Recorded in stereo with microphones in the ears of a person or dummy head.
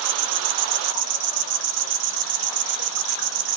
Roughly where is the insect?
Right.